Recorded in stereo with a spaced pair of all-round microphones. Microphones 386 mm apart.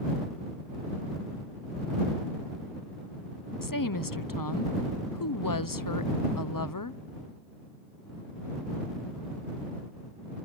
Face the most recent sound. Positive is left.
turn(degrees=55)  # may be behind; listen again after turning